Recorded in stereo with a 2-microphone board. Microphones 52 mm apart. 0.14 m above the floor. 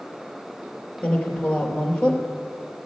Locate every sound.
1.0 s a woman speaking: 20° left (ahead or behind), 2.5 m